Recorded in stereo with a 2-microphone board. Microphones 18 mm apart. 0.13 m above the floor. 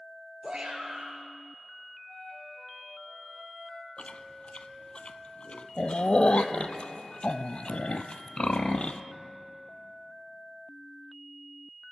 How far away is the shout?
About 2.5 m.